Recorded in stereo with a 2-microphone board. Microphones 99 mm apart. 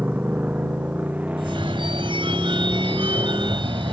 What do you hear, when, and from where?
0.0 s a motorcycle: 15° right (ahead or behind); by 3.9 s 10° right (ahead or behind)
1.4 s a phone ringing: 60° right (ahead or behind)